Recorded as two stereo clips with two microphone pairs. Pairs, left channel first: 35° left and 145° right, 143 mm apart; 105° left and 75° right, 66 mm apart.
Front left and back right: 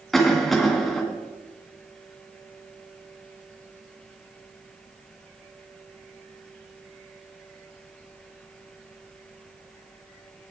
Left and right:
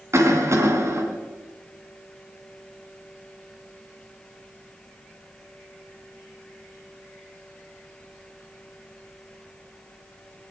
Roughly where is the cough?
Ahead right.